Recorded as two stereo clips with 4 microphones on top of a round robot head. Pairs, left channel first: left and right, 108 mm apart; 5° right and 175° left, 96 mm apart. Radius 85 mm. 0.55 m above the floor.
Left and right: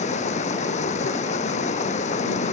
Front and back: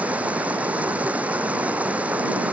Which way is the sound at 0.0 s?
100° left.